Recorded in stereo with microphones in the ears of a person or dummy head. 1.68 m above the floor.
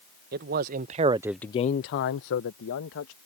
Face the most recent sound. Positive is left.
turn(degrees=70)  # may be behind; listen again after turning